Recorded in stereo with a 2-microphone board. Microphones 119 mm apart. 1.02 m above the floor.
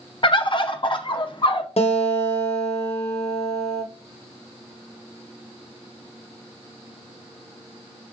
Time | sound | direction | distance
0.2 | a bird | 45° left (ahead or behind) | 0.5 m
1.8 | a guitar | 60° left (ahead or behind) | 0.8 m